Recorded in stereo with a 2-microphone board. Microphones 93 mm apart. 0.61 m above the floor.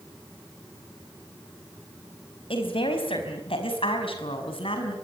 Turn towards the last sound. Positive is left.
turn(degrees=75)  # may be behind; listen again after turning